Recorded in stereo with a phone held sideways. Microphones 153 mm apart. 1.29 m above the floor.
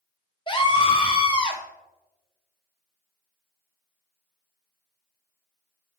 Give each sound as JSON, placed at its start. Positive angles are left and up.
{"t": 0.5, "sound": "a scream", "side_deg": 35, "distance_m": 0.7}